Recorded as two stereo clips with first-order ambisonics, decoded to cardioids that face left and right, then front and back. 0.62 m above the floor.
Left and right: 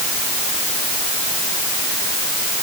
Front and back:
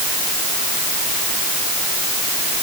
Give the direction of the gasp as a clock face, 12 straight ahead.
No gasp in this recording.